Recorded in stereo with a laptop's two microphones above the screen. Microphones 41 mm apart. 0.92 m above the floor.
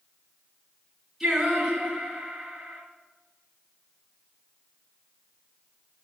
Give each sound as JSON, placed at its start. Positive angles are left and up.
{"t": 1.2, "sound": "singing", "side_deg": -5, "distance_m": 2.5}